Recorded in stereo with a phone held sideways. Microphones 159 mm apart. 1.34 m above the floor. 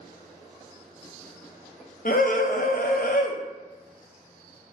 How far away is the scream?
About 0.6 m.